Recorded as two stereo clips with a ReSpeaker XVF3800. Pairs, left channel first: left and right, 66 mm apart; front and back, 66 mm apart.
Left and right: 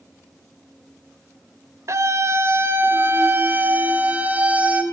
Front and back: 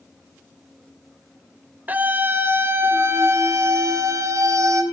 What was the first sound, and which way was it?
A scream, 120° right.